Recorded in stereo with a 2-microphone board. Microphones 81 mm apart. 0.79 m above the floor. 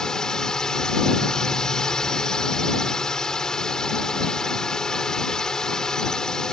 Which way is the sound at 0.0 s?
5° left (ahead or behind).